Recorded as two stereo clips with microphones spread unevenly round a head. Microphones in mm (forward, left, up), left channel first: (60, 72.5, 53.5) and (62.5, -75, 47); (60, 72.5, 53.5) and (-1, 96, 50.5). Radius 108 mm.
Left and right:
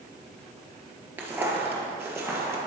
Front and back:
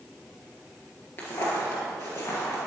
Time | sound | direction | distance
1.2 | footsteps | 20° right | 1.4 m